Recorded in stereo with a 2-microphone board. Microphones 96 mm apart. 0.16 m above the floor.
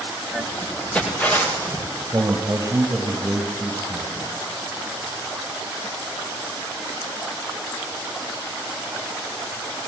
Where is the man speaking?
30° right (ahead or behind), 3 m.